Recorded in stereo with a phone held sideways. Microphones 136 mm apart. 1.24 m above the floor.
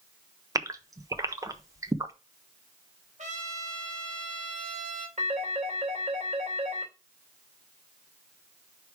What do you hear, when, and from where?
0.6 s a gasp: 25° right (ahead or behind), 0.7 m
3.2 s a trumpet: 60° right (ahead or behind), 1.7 m
5.2 s a phone ringing: 65° right (ahead or behind), 3 m